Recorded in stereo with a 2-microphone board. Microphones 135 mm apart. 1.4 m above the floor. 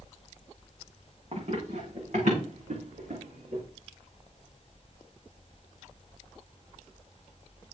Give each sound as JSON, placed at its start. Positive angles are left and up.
{"t": 1.3, "sound": "running footsteps", "side_deg": -55, "distance_m": 6.5}